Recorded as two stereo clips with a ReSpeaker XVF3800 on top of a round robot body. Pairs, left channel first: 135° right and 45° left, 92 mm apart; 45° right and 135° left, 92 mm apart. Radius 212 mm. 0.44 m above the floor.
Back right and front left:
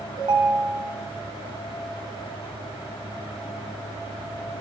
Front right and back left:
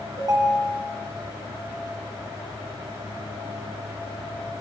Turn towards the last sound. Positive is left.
turn(degrees=80)